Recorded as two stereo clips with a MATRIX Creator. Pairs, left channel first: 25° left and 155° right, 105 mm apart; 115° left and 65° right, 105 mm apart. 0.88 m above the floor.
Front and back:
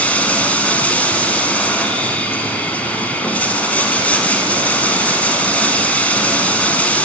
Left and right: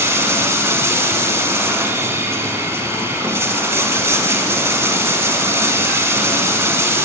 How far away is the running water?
About 0.8 m.